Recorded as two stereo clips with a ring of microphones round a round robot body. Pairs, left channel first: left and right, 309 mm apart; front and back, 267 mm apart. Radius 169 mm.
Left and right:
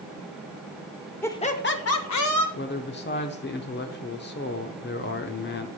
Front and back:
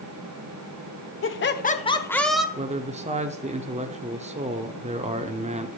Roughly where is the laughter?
Ahead.